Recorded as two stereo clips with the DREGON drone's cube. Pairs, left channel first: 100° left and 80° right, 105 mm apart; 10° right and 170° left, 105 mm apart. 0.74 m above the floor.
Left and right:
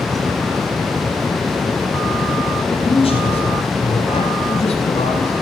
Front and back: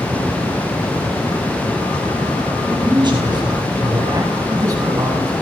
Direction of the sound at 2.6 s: 130° left.